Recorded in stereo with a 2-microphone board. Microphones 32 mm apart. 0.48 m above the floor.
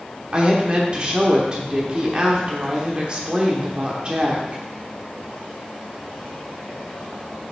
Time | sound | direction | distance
0.3 | a woman speaking | 30° right (ahead or behind) | 1.2 m